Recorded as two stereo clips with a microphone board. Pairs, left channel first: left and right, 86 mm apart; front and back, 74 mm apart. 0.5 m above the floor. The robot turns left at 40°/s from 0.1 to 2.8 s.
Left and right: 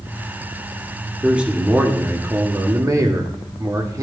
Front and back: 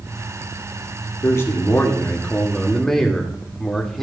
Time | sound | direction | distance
1.2 | a man speaking | 15° right | 1.4 m